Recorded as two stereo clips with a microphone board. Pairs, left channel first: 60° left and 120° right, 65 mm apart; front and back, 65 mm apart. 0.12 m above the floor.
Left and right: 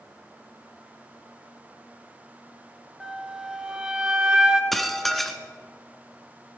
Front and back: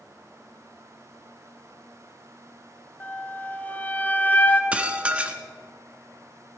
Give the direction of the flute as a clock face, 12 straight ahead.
2 o'clock.